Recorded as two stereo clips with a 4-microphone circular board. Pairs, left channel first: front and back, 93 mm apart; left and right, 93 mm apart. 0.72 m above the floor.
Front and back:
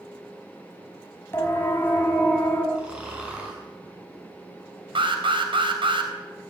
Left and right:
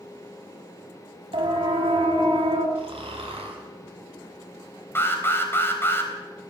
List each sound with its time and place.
1.3 s a siren: 65° right, 4 m; by 2.6 s 70° right, 5.5 m
2.8 s snoring: 100° right, 7 m
5.0 s an alarm: 155° left, 3.5 m